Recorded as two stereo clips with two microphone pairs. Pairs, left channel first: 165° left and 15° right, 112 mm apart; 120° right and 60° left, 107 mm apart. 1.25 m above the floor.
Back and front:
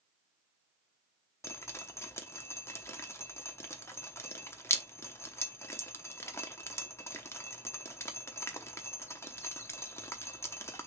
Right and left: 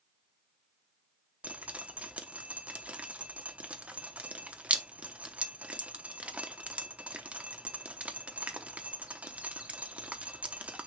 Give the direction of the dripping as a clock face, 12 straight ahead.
8 o'clock.